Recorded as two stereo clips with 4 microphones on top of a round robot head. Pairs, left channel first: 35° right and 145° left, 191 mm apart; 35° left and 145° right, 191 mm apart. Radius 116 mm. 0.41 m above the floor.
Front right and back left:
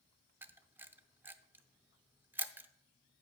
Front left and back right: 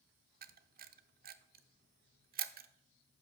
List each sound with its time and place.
0.4 s a camera shutter: 140° right, 0.6 m